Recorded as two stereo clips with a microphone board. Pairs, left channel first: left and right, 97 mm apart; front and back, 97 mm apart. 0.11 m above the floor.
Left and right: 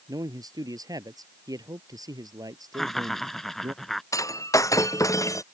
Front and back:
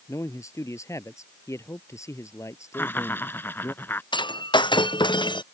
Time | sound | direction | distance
0.1 | a man speaking | 50° right | ?
2.7 | laughter | 10° left | ?
4.1 | breaking glass | 35° left | ?